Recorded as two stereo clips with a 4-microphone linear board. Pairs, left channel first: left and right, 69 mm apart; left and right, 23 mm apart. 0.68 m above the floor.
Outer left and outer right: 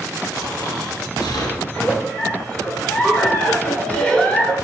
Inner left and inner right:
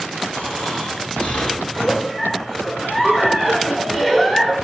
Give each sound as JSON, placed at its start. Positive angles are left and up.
{"t": 0.3, "sound": "snoring", "side_deg": 75, "distance_m": 2.0}
{"t": 1.6, "sound": "a giggle", "side_deg": 20, "distance_m": 1.6}